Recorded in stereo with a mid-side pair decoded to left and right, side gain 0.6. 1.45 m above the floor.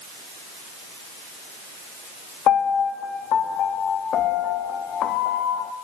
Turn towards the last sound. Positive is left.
turn(degrees=55)